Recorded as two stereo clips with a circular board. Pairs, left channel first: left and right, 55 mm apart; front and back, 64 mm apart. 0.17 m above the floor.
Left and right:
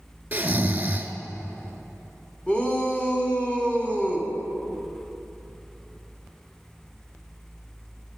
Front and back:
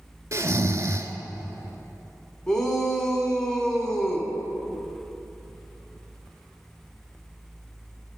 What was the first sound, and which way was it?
Snoring, 145° right.